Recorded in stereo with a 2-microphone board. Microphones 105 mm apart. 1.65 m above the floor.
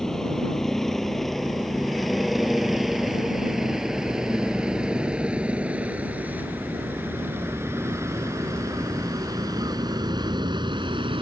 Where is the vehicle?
5° left (ahead or behind); by 11.2 s 50° right (ahead or behind).